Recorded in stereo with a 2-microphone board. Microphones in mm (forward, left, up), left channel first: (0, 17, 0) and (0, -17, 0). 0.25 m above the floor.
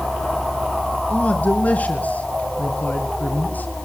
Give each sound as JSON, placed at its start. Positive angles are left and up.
{"t": 1.1, "sound": "a man speaking", "side_deg": 50, "distance_m": 4.0}